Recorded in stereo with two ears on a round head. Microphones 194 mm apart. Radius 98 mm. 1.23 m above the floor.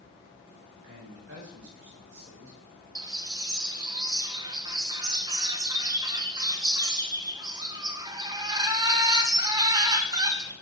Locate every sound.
0.8 s a man speaking: 60° right (ahead or behind), 5 m
3.0 s a bird: 20° right (ahead or behind), 1.0 m